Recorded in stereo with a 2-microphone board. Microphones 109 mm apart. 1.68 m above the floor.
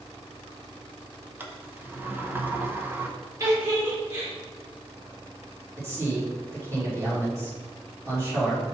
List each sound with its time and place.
1.4 s a sliding door: 20° right (ahead or behind), 0.8 m
3.4 s a giggle: 30° right (ahead or behind), 3 m
5.8 s a man speaking: 25° right (ahead or behind), 3 m